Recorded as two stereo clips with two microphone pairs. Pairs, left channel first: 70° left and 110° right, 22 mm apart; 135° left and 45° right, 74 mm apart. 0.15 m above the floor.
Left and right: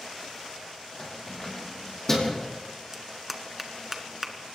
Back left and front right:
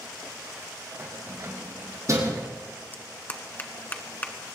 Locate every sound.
1.0 s keys jangling: straight ahead, 5.5 m; by 2.5 s 5° right, 5.5 m
2.9 s a clap: straight behind, 1.6 m